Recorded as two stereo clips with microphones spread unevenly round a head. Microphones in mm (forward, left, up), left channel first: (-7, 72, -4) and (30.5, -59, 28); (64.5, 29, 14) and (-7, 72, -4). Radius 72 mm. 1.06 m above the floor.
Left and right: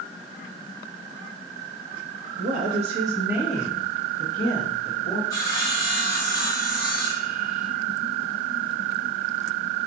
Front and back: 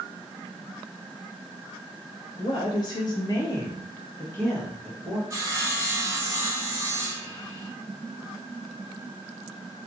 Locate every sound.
2.4 s a woman speaking: 80° right, 0.5 m; by 5.2 s 45° left, 1.5 m
5.3 s sawing: 140° left, 1.1 m